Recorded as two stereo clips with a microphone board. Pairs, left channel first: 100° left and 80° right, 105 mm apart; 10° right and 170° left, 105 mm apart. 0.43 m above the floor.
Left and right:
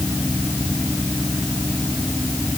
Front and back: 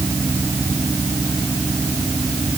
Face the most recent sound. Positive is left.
No sound to turn to.